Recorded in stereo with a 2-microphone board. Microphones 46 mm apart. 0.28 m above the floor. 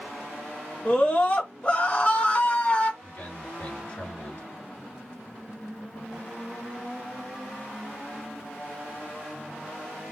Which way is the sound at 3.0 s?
35° left (ahead or behind).